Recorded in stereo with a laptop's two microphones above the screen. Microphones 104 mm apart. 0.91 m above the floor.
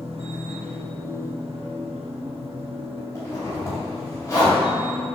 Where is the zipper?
25° left (ahead or behind), 3.5 m.